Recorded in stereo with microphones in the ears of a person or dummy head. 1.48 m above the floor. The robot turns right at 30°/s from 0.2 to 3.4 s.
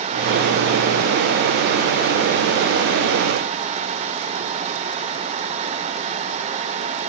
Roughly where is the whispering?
I don't hear whispering.